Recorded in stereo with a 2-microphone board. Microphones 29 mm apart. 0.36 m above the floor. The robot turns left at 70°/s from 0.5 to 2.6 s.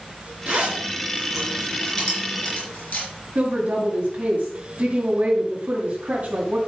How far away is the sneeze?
I don't hear a sneeze.